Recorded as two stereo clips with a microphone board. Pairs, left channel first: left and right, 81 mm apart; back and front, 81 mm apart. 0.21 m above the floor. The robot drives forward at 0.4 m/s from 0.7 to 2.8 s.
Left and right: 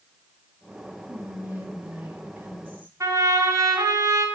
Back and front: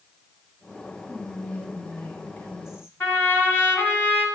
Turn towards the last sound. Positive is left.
turn(degrees=-125)